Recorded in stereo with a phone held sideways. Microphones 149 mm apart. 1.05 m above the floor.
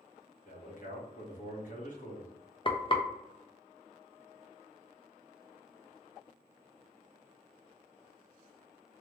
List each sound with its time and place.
0.5 s a man speaking: 55° left (ahead or behind), 1.1 m
2.6 s frying: 35° left (ahead or behind), 0.5 m